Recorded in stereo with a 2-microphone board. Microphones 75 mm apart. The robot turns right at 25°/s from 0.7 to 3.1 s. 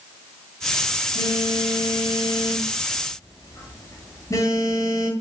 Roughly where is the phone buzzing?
Left.